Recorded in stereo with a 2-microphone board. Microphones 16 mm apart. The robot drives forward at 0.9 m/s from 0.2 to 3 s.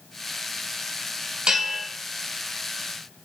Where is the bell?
65° right (ahead or behind), 2 m; by 1.9 s 60° right (ahead or behind), 2 m.